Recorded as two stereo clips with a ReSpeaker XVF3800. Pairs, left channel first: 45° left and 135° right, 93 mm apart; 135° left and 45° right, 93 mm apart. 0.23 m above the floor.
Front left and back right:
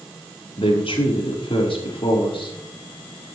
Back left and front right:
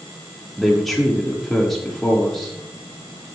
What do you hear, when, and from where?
0.6 s a man speaking: 45° left, 6 m